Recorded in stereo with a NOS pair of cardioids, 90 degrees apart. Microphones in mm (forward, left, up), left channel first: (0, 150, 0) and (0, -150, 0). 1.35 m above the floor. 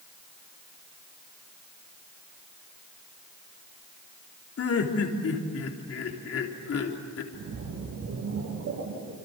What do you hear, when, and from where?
4.6 s laughter: 50° left, 3.5 m
7.3 s a splash: 65° right, 8 m